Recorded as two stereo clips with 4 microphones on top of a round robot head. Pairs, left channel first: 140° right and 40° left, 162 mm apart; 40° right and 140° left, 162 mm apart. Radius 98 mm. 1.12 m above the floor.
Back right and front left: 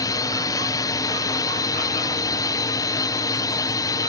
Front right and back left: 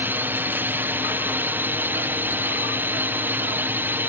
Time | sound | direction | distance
0.0 | a drone | 160° right | ?